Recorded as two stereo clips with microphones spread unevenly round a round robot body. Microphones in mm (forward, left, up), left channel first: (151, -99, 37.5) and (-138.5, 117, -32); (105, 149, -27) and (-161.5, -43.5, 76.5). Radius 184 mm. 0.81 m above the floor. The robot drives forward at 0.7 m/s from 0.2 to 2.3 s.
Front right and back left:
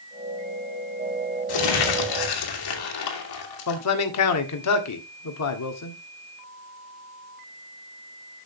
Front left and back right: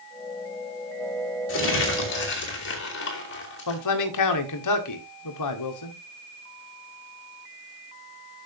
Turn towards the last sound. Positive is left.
turn(degrees=10)